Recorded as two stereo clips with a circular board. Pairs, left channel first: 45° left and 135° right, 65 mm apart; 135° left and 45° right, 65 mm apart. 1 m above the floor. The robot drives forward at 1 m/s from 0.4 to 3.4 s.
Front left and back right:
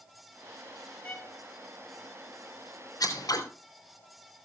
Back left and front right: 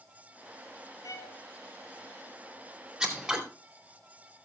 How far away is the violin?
About 3.5 m.